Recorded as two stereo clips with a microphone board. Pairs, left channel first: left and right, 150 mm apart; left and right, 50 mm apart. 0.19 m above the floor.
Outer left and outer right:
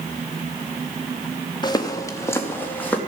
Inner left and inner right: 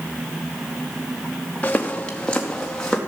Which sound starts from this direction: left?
Footsteps, at 1.6 s.